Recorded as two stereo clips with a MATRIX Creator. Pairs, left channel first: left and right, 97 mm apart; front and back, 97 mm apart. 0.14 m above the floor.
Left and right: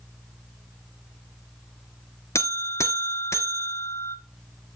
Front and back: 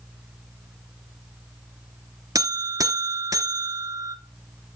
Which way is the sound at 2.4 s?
140° left.